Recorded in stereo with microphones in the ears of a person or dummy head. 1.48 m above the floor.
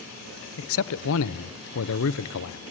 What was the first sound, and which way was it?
A man speaking, 70° left (ahead or behind).